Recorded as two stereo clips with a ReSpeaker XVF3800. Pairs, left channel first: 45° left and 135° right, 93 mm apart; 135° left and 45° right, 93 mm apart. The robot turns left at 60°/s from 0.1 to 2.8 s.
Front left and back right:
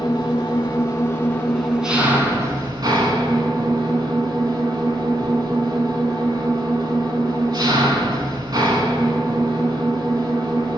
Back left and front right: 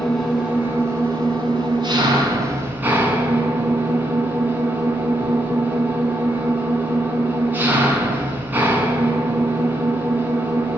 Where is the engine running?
50° left, 1.6 m; by 10.8 s 110° right, 1.6 m.